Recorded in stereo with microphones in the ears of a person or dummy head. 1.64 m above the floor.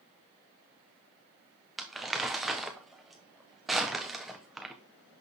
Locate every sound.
1.8 s crumpling: 5° right (ahead or behind), 1.0 m